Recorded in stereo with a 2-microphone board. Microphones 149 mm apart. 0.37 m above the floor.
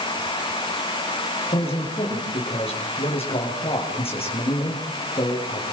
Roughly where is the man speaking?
Left.